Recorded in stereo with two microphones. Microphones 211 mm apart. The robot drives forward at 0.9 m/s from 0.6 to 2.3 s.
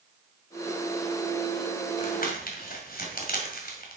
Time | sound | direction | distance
2.0 | crumpling | 40° left (ahead or behind) | 2.5 m